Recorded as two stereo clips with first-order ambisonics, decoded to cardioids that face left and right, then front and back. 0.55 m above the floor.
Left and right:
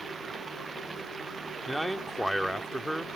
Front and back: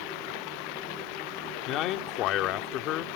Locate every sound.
0.0 s running water: 15° right
1.7 s a man speaking: straight ahead